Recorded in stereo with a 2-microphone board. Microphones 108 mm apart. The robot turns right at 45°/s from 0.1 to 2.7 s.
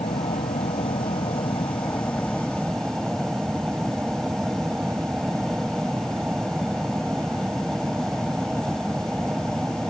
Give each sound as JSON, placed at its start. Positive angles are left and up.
{"t": 0.0, "sound": "an aircraft", "azimuth_deg": 70}